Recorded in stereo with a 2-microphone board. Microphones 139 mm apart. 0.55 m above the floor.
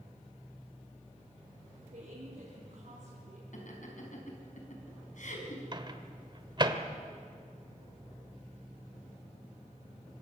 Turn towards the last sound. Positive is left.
turn(degrees=-35)  # may be behind; listen again after turning